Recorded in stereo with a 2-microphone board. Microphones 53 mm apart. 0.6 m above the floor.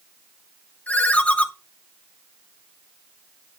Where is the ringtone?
30° left (ahead or behind), 0.7 m.